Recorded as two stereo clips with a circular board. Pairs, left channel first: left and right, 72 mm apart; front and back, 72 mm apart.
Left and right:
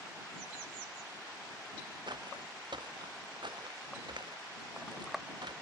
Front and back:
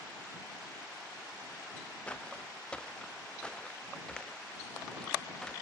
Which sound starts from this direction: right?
Footsteps, at 2.1 s.